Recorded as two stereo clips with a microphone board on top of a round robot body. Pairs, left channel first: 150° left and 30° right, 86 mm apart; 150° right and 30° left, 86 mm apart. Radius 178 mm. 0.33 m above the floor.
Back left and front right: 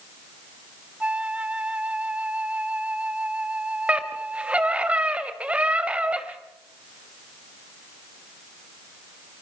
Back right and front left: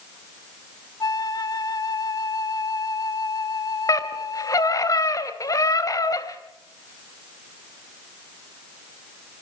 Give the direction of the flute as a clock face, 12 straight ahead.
4 o'clock.